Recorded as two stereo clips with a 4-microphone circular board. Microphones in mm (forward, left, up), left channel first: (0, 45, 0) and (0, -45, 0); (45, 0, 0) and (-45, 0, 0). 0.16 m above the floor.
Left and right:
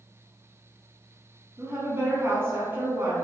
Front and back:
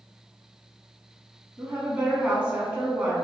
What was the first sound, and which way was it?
A woman speaking, 120° right.